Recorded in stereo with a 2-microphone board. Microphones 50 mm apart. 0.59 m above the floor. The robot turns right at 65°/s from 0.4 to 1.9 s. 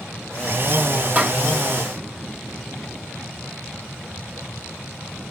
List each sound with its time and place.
1.1 s a pop: 40° right (ahead or behind), 2.5 m; by 1.4 s 25° right (ahead or behind), 2.5 m